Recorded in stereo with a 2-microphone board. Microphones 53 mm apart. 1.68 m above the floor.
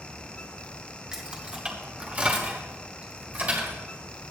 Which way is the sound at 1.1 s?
15° right (ahead or behind).